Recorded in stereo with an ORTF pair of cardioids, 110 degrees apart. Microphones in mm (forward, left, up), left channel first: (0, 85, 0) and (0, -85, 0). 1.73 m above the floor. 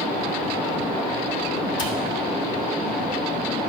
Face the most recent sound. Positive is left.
turn(degrees=25)